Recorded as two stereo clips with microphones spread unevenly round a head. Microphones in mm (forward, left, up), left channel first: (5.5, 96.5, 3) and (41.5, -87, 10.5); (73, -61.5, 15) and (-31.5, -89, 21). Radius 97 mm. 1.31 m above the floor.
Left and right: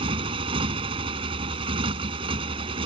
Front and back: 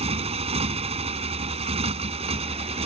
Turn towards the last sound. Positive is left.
turn(degrees=-145)